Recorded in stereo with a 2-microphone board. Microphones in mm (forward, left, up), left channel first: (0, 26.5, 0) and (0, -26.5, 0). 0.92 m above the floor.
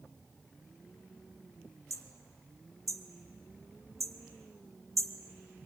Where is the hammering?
75° right (ahead or behind), 1.5 m.